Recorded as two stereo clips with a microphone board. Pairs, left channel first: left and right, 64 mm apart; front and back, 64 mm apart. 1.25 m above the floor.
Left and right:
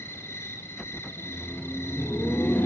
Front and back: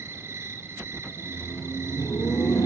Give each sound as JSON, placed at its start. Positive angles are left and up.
{"t": 0.0, "sound": "an insect", "azimuth_deg": 135, "distance_m": 1.9}
{"t": 1.1, "sound": "laughter", "azimuth_deg": 30, "distance_m": 2.0}